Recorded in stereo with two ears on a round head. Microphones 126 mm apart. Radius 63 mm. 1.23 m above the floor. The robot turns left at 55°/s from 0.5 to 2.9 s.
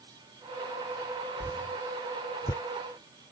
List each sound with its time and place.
1.4 s a whoosh: 15° left (ahead or behind); by 2.6 s 25° left (ahead or behind)